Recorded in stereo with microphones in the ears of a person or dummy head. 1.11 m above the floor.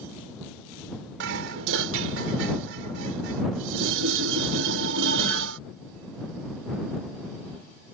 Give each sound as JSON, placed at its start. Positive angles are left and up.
{"t": 1.2, "sound": "dishes clattering", "side_deg": -70}